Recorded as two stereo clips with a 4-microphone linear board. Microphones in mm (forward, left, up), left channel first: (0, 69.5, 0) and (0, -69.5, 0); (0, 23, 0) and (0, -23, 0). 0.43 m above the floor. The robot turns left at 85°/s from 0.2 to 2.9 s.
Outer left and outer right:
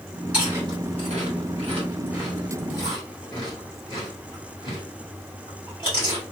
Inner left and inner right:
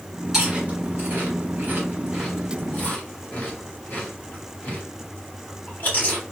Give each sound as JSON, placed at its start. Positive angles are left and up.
{"t": 0.3, "sound": "chewing", "side_deg": -10, "distance_m": 1.9}